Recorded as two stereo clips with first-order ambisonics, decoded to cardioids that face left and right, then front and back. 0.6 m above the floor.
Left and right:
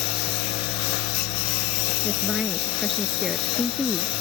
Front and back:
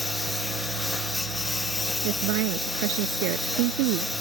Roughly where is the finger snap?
No finger snap in this recording.